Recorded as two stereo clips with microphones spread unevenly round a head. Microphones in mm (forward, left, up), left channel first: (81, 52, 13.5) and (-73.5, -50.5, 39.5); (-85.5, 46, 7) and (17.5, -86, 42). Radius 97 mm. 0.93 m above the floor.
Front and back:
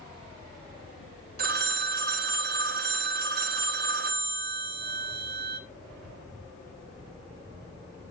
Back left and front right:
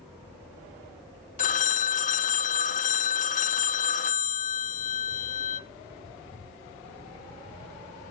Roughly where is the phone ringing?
Behind.